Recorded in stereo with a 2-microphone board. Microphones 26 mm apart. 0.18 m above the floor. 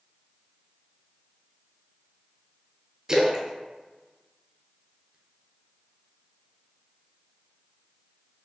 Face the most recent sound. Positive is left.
turn(degrees=-30)  # may be behind; listen again after turning